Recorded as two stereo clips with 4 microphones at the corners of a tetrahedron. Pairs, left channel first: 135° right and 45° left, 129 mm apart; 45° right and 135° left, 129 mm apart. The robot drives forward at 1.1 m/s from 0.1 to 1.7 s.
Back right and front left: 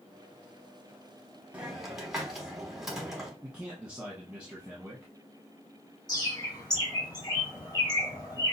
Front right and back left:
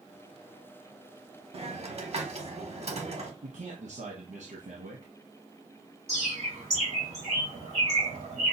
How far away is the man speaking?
About 0.8 m.